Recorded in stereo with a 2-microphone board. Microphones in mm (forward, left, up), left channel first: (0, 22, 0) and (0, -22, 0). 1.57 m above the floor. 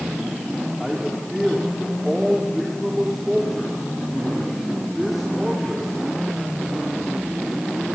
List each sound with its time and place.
0.8 s a man speaking: 5° right (ahead or behind), 3.5 m